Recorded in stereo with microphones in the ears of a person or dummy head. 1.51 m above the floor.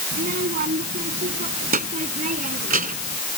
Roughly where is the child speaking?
Right.